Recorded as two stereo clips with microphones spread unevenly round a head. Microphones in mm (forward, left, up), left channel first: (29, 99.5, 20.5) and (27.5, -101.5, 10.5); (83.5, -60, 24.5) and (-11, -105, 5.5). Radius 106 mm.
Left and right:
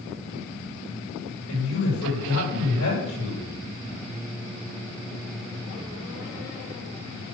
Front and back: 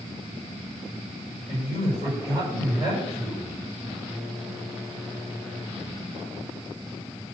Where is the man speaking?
80° left, 6 m.